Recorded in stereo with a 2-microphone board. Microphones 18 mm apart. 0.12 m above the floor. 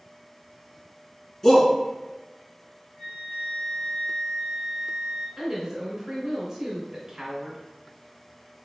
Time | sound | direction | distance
1.4 | a shout | 25° left (ahead or behind) | 1.3 m
3.0 | a flute | 40° left (ahead or behind) | 1.9 m
5.4 | a woman speaking | 25° right (ahead or behind) | 1.6 m